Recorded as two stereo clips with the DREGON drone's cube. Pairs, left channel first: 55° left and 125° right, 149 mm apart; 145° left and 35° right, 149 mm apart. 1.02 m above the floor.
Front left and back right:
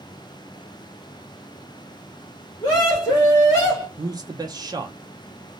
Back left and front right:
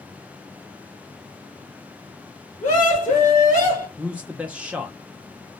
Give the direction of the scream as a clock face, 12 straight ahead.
8 o'clock.